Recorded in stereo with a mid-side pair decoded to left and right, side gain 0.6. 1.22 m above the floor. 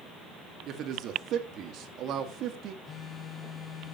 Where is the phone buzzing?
35° left, 1.5 m.